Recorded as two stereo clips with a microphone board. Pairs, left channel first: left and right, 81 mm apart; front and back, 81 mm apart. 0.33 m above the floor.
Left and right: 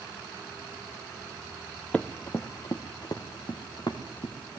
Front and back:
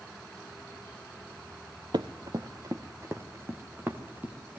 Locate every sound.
1.9 s running footsteps: 165° left, 1.1 m; by 4.6 s 110° left, 4 m